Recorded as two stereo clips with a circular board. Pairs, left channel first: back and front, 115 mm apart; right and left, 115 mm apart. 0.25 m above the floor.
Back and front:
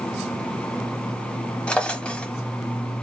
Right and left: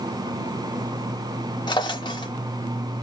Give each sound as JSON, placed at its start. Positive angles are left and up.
{"t": 1.7, "sound": "a drawer", "azimuth_deg": -105, "distance_m": 0.6}